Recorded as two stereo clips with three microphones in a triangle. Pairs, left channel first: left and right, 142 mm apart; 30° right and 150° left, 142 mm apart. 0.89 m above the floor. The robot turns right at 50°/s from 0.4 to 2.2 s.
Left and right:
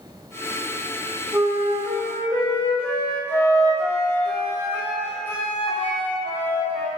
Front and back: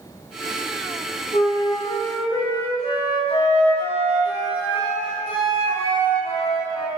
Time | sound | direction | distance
1.3 | a flute | 25° right | 1.7 m